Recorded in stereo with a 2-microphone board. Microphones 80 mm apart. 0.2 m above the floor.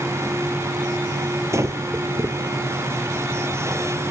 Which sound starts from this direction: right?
Breathing, at 1.5 s.